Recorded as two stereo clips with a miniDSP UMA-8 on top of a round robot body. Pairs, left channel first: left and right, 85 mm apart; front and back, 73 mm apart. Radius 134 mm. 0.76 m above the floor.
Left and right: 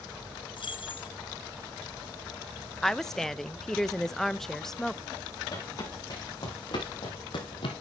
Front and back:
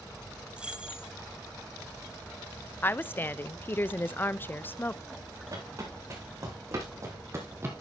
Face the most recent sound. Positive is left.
turn(degrees=115)